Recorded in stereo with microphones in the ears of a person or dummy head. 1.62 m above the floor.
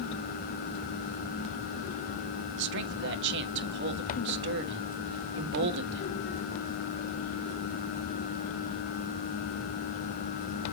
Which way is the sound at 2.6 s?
65° right (ahead or behind).